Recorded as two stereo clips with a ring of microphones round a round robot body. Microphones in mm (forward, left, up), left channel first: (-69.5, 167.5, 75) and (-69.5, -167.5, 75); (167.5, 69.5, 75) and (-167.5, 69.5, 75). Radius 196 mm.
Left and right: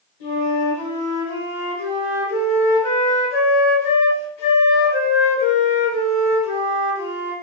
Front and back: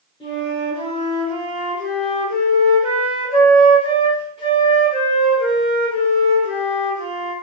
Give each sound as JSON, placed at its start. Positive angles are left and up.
{"t": 0.2, "sound": "a flute", "azimuth_deg": 75, "distance_m": 1.3}